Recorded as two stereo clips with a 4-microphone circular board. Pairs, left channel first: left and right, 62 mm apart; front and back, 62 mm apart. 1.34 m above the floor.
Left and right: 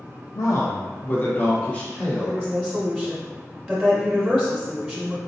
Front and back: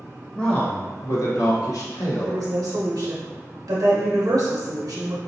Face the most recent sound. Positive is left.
turn(degrees=-175)